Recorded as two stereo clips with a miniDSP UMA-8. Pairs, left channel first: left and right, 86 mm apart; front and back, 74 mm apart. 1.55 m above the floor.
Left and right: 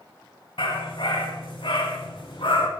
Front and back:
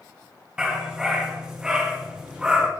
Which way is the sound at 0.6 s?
100° left.